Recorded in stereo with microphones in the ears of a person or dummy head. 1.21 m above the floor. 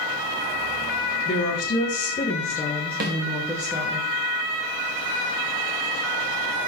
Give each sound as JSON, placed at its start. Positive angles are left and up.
{"t": 1.2, "sound": "a woman speaking", "side_deg": 50, "distance_m": 1.7}
{"t": 3.0, "sound": "a snare drum", "side_deg": -50, "distance_m": 1.3}